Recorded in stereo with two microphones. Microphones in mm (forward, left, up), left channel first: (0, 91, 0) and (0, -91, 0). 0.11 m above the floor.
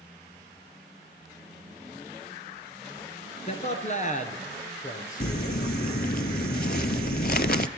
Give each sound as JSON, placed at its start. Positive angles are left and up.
{"t": 3.5, "sound": "a man speaking", "side_deg": 35, "distance_m": 1.4}
{"t": 5.2, "sound": "crumpling", "side_deg": 60, "distance_m": 0.6}